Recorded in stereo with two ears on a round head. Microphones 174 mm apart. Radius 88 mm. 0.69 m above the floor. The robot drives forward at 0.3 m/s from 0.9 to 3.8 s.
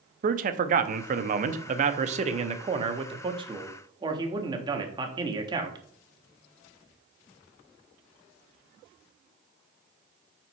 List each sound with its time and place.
0.2 s a man speaking: 40° right (ahead or behind), 0.6 m; by 5.8 s 25° right (ahead or behind), 1.0 m